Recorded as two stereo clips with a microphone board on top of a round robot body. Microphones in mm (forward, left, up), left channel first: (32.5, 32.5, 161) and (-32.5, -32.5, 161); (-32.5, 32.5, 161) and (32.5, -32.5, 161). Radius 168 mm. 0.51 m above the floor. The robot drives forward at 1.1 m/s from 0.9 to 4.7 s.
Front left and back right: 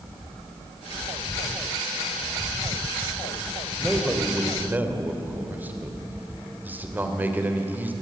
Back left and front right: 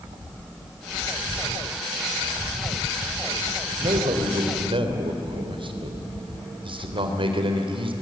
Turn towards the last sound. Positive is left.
turn(degrees=-65)